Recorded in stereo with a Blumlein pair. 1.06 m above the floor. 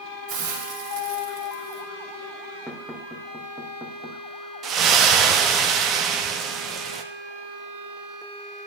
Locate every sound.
0.3 s a hiss: 40° right, 2.5 m
2.7 s knocking: 5° right, 1.7 m
4.6 s a splash: 30° right, 1.0 m